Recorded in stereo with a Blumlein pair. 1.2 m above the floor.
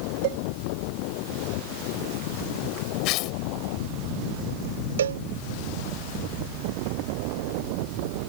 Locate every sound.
0.2 s a cowbell: 50° right
3.0 s tearing paper: 40° left
5.0 s a cowbell: 65° right